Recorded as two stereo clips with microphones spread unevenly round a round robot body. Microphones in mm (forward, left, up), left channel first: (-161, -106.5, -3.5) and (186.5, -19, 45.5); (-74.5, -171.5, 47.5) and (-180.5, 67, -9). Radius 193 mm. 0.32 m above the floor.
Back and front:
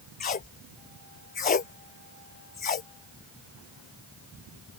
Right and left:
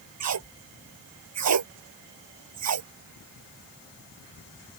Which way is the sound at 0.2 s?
125° left.